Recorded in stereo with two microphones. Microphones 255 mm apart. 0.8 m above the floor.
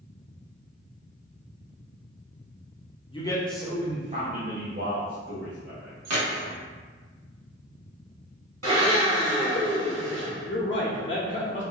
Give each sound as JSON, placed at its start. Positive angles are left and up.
{"t": 3.1, "sound": "a man speaking", "side_deg": 20, "distance_m": 0.7}
{"t": 6.0, "sound": "keys jangling", "side_deg": -80, "distance_m": 0.9}
{"t": 8.6, "sound": "a blender", "side_deg": -75, "distance_m": 1.9}
{"t": 10.5, "sound": "a man speaking", "side_deg": 50, "distance_m": 0.6}